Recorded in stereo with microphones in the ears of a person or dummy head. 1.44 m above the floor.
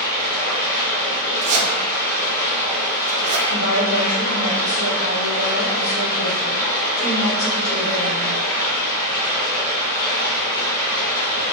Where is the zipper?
35° right (ahead or behind), 0.5 m.